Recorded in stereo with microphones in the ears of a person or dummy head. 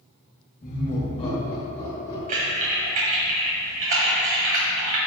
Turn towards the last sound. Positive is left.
turn(degrees=-45)  # may be behind; listen again after turning